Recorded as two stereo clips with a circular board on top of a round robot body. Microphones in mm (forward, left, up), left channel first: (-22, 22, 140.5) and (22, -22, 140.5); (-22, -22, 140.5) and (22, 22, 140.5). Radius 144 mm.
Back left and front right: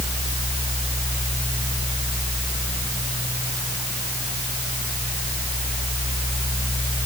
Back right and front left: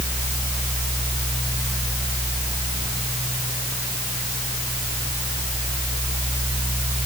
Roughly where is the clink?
No clink in this recording.